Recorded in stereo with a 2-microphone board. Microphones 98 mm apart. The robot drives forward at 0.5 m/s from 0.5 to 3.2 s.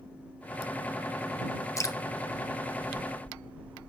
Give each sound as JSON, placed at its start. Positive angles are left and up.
{"t": 1.8, "sound": "dripping", "side_deg": 30, "distance_m": 0.7}